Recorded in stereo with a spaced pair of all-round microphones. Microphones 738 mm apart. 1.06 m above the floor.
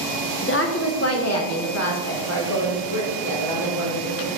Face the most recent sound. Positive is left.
turn(degrees=20)  # may be behind; listen again after turning